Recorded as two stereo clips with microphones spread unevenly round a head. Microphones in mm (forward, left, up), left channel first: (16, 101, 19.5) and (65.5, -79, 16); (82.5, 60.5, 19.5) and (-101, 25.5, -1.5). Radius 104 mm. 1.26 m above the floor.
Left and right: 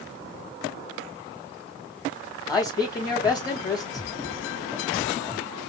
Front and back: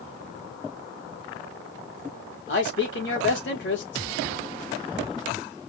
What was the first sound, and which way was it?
A man speaking, 35° left.